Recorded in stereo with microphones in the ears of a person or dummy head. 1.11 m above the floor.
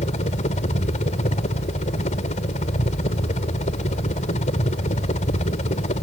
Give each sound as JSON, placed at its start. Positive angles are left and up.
{"t": 0.0, "sound": "a helicopter", "side_deg": 35}